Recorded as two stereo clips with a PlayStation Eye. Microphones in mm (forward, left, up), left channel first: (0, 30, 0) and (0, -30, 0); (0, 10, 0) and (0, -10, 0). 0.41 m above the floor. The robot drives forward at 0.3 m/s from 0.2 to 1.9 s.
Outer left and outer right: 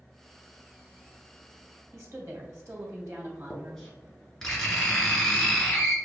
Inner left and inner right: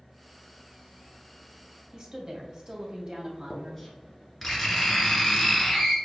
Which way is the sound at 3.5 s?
10° left (ahead or behind).